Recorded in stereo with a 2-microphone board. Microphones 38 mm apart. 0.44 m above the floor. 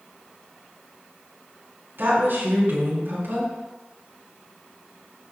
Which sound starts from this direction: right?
A woman speaking, at 2.0 s.